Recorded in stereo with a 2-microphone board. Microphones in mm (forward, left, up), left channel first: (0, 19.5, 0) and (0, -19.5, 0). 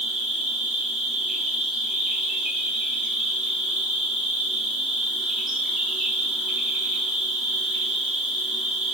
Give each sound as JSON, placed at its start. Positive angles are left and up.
{"t": 0.0, "sound": "an insect", "side_deg": -15, "distance_m": 0.8}